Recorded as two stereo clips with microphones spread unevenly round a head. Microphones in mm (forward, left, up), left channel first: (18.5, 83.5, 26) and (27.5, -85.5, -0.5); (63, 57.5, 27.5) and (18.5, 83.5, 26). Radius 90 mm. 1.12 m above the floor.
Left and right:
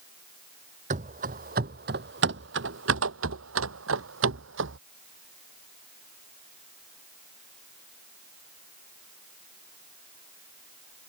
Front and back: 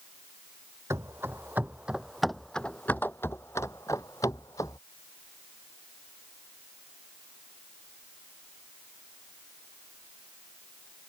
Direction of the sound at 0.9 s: 140° right.